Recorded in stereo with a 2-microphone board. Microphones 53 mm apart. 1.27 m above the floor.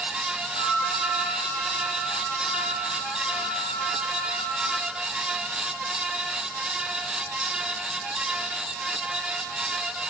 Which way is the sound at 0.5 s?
15° left (ahead or behind).